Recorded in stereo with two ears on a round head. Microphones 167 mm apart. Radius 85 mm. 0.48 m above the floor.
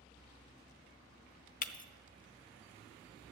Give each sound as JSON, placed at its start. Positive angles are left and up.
{"t": 1.6, "sound": "breaking glass", "side_deg": 45, "distance_m": 0.7}